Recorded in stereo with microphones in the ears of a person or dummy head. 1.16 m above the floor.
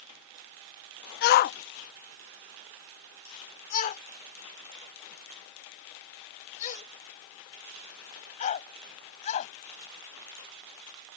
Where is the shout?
55° left (ahead or behind); by 9.5 s 40° left (ahead or behind).